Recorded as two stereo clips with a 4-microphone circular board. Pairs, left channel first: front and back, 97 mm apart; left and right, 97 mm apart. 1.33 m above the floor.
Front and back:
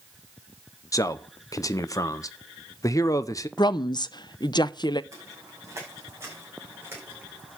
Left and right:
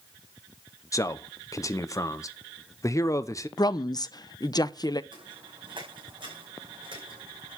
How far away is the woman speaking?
About 0.6 m.